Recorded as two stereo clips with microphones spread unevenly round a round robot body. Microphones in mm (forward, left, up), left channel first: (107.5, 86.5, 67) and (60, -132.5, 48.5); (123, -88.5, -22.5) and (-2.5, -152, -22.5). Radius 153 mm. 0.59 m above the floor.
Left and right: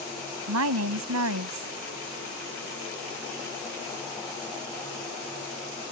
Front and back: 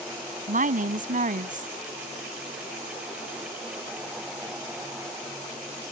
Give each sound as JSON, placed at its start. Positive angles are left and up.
{"t": 0.5, "sound": "a woman speaking", "azimuth_deg": -130}